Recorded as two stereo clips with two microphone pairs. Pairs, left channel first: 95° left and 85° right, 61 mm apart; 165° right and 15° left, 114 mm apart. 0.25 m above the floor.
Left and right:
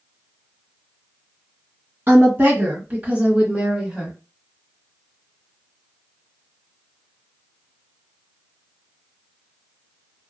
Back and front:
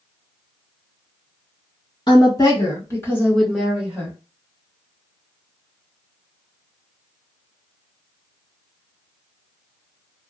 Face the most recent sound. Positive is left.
turn(degrees=0)